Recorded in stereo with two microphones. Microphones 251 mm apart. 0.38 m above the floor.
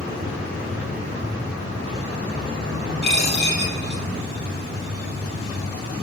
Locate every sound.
3.0 s a dropped coin: 40° left (ahead or behind), 3.5 m